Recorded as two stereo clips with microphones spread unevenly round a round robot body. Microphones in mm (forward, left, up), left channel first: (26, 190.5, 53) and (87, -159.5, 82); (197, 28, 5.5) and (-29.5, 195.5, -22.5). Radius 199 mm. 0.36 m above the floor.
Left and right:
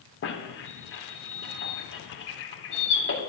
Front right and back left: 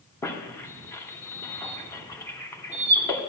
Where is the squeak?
45° left, 1.6 m.